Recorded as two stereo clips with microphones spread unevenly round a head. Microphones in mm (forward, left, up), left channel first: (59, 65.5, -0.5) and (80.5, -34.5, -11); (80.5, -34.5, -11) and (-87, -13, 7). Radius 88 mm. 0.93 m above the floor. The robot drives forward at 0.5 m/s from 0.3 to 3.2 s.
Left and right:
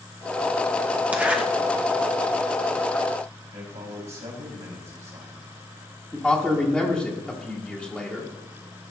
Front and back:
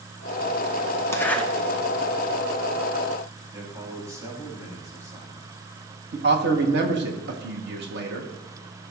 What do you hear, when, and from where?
1.1 s a zipper: 40° right, 0.9 m; by 1.4 s 60° right, 0.9 m
3.5 s a man speaking: 115° right, 4.5 m
6.1 s a man speaking: 165° right, 1.5 m